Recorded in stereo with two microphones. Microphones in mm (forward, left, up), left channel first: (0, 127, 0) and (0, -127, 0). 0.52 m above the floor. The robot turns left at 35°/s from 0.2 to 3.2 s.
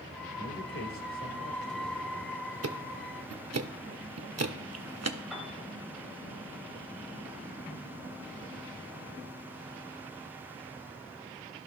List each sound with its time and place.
0.4 s a man speaking: 95° left, 1.7 m; by 2.4 s 25° left, 1.7 m
2.6 s ticking: 70° right (ahead or behind), 0.6 m; by 5.2 s 80° right, 0.6 m
5.3 s a piano: centre (ahead or behind), 2 m